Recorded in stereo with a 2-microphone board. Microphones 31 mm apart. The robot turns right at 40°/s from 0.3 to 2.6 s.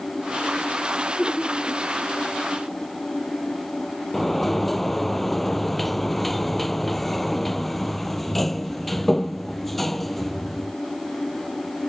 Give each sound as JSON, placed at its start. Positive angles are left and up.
{"t": 1.2, "sound": "laughter", "side_deg": -5}
{"t": 4.1, "sound": "a sliding door", "side_deg": 5}